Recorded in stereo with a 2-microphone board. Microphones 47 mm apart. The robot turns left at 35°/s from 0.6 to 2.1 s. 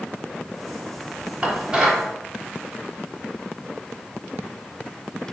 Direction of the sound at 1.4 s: 30° right (ahead or behind).